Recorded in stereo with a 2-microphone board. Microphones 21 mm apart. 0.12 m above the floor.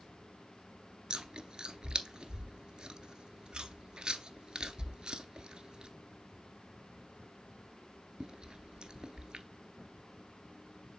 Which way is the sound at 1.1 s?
35° right (ahead or behind).